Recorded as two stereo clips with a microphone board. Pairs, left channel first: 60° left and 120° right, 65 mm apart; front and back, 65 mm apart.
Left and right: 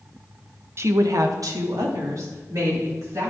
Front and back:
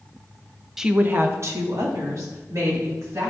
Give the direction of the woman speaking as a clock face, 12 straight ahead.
3 o'clock.